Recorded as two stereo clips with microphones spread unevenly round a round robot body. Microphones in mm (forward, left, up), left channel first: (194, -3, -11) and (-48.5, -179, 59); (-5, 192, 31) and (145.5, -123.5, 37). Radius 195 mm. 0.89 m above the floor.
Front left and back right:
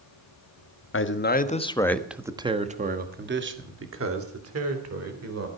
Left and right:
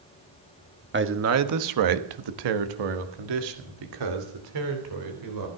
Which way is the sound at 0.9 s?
5° right.